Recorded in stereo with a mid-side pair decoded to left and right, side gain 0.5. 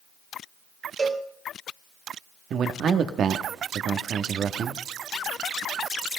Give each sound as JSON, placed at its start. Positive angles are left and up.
{"t": 1.0, "sound": "a cowbell", "azimuth_deg": -40, "distance_m": 2.0}
{"t": 2.5, "sound": "a man speaking", "azimuth_deg": -55, "distance_m": 1.5}